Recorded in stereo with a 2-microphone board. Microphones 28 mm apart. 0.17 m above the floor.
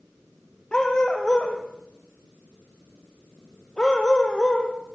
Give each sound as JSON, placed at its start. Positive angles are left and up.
{"t": 0.7, "sound": "a dog barking", "side_deg": 30, "distance_m": 3.5}